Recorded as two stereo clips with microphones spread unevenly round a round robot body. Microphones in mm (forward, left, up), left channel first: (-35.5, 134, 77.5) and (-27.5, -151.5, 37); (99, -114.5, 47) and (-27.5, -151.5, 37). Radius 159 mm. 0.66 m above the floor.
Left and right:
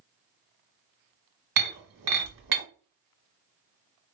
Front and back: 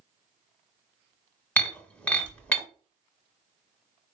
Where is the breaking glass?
60° right, 1.5 m.